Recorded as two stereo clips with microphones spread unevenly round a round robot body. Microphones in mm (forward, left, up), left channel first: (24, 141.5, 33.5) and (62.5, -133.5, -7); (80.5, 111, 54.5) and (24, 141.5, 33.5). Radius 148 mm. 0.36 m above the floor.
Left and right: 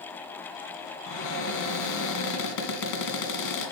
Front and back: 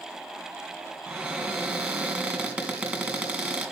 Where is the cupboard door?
80° left, 2.5 m.